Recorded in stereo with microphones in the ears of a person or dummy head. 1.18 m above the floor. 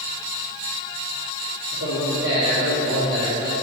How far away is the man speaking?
About 2 m.